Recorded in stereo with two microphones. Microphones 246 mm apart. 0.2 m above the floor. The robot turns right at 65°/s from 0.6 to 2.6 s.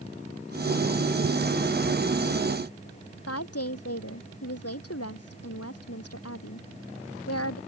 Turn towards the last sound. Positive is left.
turn(degrees=75)  # may be behind; listen again after turning